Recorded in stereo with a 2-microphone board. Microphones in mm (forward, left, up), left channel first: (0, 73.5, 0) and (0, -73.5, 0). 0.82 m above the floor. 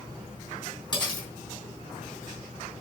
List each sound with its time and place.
0.9 s cutlery clinking: 30° left (ahead or behind), 4.5 m